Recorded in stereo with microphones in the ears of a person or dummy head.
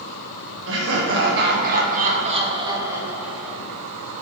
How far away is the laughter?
About 1.6 m.